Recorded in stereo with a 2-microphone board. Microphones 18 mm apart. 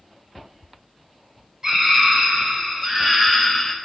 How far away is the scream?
About 3 m.